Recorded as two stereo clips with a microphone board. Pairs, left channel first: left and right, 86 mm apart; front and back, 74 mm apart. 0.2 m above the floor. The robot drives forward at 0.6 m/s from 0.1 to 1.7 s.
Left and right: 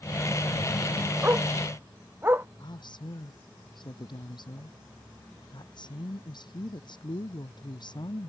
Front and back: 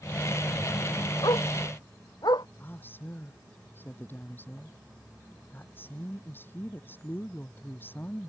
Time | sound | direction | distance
1.2 | a dog barking | 25° right | ?
2.6 | a woman speaking | 65° left | ?